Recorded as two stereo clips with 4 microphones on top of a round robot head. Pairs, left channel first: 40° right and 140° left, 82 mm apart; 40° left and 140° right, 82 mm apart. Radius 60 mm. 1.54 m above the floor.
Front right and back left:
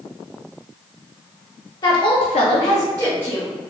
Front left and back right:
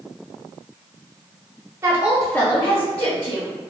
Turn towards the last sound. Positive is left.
turn(degrees=40)